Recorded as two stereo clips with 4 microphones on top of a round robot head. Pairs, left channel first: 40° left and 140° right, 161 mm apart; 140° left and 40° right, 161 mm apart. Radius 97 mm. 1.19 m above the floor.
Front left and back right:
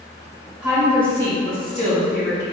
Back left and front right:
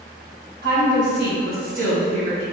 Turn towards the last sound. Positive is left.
turn(degrees=15)